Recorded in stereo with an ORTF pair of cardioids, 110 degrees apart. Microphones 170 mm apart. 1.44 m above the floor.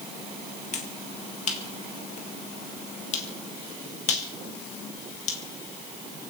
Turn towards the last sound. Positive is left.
turn(degrees=45)